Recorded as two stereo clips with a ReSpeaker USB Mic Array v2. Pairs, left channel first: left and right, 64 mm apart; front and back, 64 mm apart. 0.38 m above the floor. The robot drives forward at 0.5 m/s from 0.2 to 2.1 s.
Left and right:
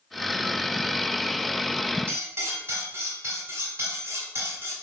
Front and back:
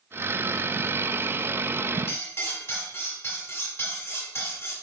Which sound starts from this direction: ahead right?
Cutlery clinking, at 2.1 s.